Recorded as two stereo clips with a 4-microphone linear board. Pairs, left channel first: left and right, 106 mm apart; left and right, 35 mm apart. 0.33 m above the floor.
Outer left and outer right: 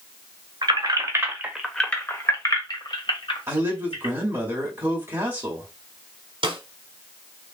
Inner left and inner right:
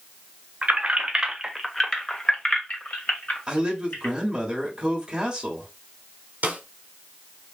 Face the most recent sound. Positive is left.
turn(degrees=-60)  # may be behind; listen again after turning